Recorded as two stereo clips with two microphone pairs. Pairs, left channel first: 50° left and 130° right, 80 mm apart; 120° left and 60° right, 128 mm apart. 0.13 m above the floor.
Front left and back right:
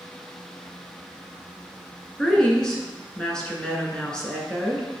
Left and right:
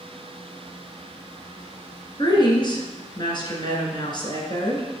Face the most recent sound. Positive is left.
turn(degrees=125)